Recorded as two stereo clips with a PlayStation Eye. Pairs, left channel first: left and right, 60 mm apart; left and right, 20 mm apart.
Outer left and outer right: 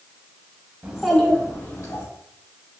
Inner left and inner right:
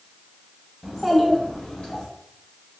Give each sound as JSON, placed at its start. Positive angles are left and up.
{"t": 0.8, "sound": "a child speaking", "side_deg": -25, "distance_m": 0.7}